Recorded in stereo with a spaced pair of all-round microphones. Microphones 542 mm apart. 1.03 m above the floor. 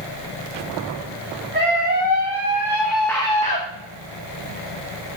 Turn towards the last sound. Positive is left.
turn(degrees=20)  # may be behind; listen again after turning